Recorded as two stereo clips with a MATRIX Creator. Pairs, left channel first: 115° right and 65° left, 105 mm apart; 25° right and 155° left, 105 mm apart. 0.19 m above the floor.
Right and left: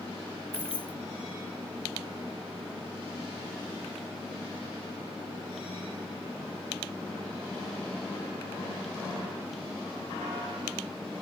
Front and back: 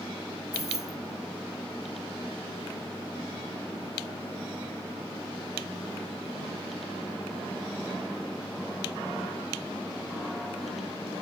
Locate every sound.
0.5 s keys jangling: 15° left